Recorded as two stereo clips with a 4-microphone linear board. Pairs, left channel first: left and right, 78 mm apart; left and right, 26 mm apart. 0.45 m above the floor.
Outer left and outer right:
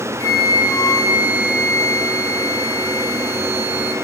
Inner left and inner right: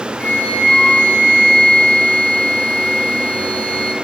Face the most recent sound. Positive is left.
turn(degrees=50)  # may be behind; listen again after turning